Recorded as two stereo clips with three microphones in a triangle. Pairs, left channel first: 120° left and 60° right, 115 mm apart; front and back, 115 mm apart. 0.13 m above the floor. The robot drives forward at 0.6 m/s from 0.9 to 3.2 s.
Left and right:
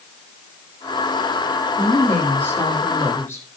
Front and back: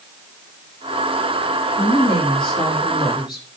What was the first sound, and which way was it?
A woman speaking, 45° left.